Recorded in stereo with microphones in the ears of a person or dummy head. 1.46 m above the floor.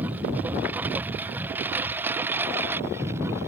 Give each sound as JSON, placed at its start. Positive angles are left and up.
{"t": 0.0, "sound": "a lawn mower", "side_deg": -10}